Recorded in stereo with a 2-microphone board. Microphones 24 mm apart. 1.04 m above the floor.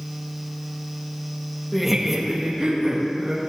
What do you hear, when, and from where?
1.7 s laughter: 10° left (ahead or behind), 1.2 m; by 3.5 s 40° right (ahead or behind), 2.5 m